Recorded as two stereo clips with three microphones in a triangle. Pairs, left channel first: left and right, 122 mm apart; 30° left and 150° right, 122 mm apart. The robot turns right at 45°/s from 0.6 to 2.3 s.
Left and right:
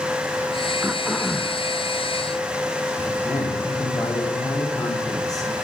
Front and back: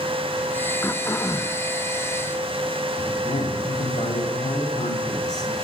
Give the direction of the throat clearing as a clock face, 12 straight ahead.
1 o'clock.